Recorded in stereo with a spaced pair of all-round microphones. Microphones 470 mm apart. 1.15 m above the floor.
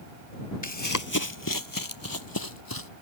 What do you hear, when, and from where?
0.6 s running footsteps: 40° left (ahead or behind); by 2.9 s 50° left (ahead or behind)